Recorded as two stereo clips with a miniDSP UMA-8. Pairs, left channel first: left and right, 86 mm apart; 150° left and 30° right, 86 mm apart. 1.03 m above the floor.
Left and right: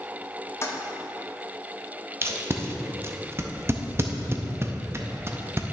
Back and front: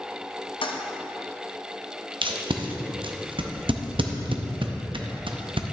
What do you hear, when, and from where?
0.6 s a toilet flushing: 150° left, 0.6 m
2.2 s tape being pulled: 30° right, 0.6 m